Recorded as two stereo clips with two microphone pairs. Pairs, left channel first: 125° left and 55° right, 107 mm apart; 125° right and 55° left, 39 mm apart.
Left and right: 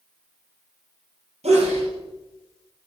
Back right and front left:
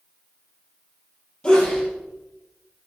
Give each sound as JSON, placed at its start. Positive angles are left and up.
{"t": 1.4, "sound": "a sneeze", "azimuth_deg": -60, "distance_m": 4.5}